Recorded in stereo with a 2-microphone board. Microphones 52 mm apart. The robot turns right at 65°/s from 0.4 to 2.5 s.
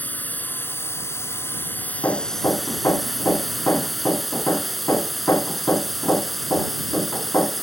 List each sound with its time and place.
0.0 s a drone: 45° left; by 7.6 s straight behind
2.0 s hammering: 65° left; by 7.6 s 100° left